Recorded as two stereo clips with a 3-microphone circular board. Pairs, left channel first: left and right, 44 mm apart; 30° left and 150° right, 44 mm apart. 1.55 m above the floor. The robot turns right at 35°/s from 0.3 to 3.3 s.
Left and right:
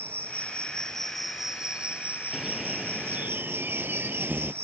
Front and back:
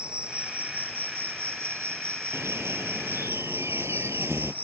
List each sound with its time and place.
0.0 s an insect: 145° left; by 4.6 s 110° right
2.3 s a bird: 170° right; by 4.5 s 140° right